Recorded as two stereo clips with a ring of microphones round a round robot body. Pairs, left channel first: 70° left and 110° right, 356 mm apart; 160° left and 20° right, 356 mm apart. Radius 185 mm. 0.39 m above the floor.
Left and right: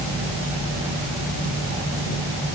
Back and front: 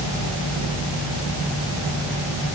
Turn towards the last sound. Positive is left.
No sound to turn to.